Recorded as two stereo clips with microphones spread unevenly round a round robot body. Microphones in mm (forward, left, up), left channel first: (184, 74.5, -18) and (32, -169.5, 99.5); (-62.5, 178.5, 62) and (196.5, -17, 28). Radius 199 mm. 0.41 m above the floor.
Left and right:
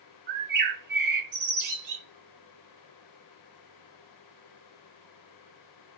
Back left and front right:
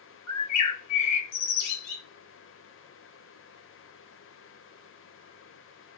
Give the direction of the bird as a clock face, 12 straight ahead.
6 o'clock.